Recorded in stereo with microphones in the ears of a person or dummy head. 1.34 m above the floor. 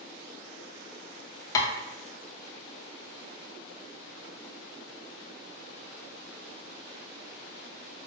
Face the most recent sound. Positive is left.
turn(degrees=20)  # may be behind; listen again after turning